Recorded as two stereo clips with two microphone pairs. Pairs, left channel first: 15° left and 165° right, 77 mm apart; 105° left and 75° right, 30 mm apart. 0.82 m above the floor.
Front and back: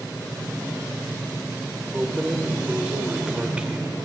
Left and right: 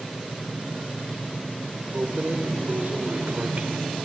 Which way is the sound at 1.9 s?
90° right.